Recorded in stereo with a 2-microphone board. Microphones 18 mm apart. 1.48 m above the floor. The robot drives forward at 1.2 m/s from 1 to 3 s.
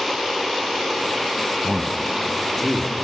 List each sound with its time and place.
1.6 s a man speaking: 25° left (ahead or behind), 1.1 m; by 3.0 s 10° left (ahead or behind), 2.5 m